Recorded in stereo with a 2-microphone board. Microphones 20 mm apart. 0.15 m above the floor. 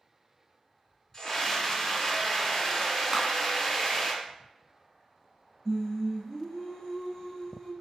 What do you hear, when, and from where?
1.1 s a scream: 25° left (ahead or behind), 1.2 m
3.1 s a clap: 10° right (ahead or behind), 0.9 m
5.7 s singing: 30° left (ahead or behind), 1.7 m